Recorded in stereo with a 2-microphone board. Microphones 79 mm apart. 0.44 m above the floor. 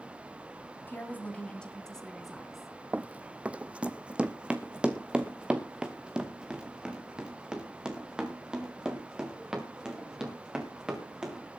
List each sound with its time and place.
0.9 s a woman speaking: 25° left (ahead or behind), 3 m; by 2.7 s 5° right (ahead or behind), 4 m
2.9 s running footsteps: 20° right (ahead or behind), 0.5 m; by 11.4 s 10° right (ahead or behind), 4.5 m